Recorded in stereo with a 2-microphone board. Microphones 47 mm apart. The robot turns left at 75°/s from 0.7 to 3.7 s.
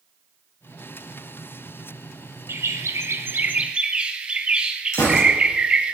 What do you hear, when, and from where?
2.5 s a bird: 65° right, 1.2 m; by 5.9 s 160° right, 1.2 m
4.9 s a gunshot: 75° left (ahead or behind), 4.5 m